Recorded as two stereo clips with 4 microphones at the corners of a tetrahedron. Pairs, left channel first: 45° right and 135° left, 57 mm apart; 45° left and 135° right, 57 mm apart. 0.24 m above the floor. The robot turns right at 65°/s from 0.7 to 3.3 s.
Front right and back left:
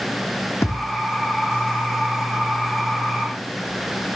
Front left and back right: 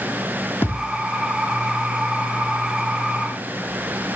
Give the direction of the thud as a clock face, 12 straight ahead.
12 o'clock.